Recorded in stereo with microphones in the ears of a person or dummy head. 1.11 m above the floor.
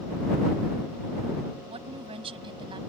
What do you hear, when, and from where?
1.7 s a woman speaking: 35° right (ahead or behind); by 2.8 s 30° right (ahead or behind)